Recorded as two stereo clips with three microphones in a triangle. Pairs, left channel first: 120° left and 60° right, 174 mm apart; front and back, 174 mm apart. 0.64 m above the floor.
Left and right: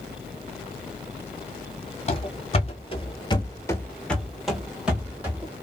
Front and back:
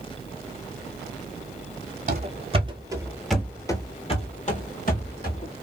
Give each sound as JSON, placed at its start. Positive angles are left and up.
{"t": 2.1, "sound": "running footsteps", "azimuth_deg": 160, "distance_m": 1.0}